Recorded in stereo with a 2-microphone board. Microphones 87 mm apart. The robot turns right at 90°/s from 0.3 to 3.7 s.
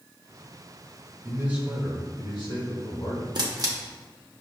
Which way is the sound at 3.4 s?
55° right (ahead or behind).